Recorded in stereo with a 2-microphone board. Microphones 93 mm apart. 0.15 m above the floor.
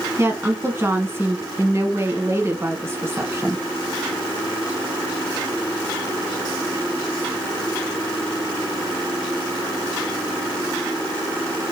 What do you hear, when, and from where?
0.2 s a woman speaking: 30° right (ahead or behind), 1.1 m